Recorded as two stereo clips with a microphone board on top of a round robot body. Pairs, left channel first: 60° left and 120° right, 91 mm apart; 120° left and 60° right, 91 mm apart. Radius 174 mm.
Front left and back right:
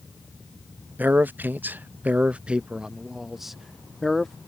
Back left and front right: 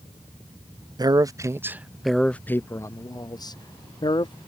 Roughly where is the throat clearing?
No throat clearing in this recording.